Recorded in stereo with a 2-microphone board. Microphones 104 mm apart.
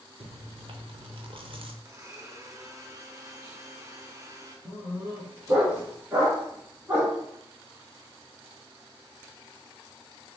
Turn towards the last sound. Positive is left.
turn(degrees=-30)  # may be behind; listen again after turning